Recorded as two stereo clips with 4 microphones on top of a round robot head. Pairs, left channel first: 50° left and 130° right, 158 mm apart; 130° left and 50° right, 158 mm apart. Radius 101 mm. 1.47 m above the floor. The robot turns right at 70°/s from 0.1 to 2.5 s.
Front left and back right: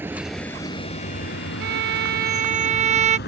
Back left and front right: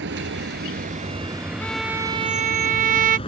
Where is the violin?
150° right; by 3.2 s 85° right.